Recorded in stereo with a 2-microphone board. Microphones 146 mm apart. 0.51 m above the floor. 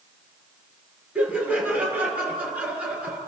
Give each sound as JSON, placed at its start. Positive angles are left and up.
{"t": 1.1, "sound": "laughter", "side_deg": -10, "distance_m": 7.0}